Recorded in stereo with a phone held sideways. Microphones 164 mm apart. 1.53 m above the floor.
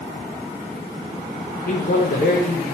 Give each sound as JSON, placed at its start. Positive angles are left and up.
{"t": 1.7, "sound": "a man speaking", "side_deg": 70, "distance_m": 0.7}